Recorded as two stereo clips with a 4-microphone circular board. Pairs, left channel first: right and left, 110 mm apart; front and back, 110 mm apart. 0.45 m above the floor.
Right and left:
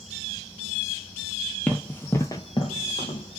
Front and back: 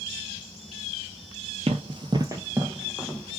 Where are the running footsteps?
170° right, 0.7 m; by 3.4 s 80° right, 0.8 m.